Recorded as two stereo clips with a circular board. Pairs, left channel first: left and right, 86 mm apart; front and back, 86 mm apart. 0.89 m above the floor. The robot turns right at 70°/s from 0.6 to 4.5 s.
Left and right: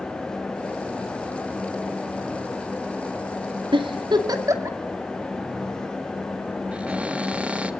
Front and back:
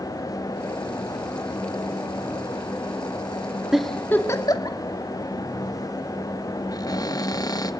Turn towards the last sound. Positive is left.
turn(degrees=-20)